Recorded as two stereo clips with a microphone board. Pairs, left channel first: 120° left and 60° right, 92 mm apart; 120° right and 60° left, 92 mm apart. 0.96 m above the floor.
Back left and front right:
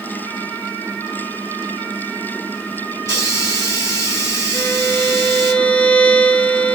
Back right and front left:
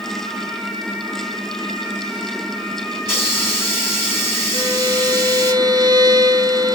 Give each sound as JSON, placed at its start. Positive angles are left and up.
{"t": 3.0, "sound": "a hiss", "azimuth_deg": 175, "distance_m": 4.0}
{"t": 4.5, "sound": "a violin", "azimuth_deg": 45, "distance_m": 1.1}